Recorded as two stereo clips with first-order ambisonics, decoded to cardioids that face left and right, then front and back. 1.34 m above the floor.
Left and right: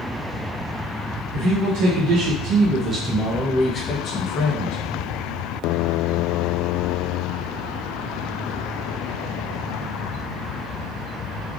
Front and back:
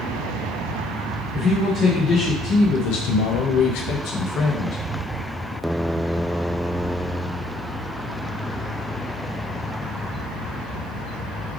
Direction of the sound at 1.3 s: 75° right.